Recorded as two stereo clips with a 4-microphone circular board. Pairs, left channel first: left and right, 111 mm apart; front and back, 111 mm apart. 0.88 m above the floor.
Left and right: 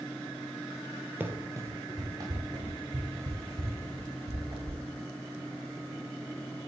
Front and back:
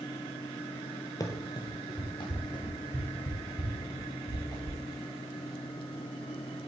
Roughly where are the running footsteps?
Ahead right.